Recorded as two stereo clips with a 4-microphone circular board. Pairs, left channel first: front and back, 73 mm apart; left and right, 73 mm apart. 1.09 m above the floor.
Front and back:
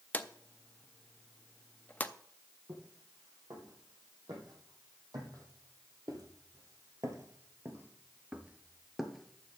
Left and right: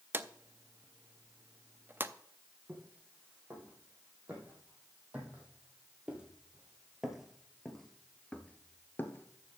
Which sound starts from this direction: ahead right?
A drawer, at 0.1 s.